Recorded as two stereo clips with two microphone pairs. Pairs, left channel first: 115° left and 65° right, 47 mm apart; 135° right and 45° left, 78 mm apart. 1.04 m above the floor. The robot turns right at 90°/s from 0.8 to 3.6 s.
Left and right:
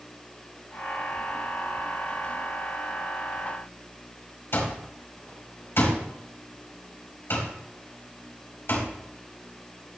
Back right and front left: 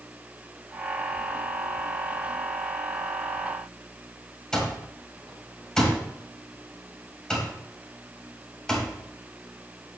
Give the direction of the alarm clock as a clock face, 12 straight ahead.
7 o'clock.